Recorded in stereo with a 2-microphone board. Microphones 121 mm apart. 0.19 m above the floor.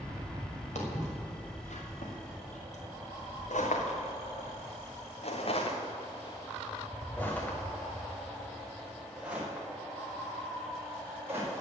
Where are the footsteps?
65° left (ahead or behind), 4.5 m; by 11.5 s 20° right (ahead or behind), 5 m.